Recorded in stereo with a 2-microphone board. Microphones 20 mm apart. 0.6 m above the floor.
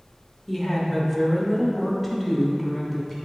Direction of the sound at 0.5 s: Centre (ahead or behind).